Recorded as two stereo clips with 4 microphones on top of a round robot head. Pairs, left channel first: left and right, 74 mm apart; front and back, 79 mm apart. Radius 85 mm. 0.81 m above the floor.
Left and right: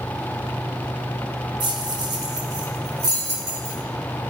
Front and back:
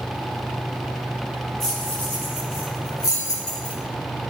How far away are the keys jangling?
About 2.0 m.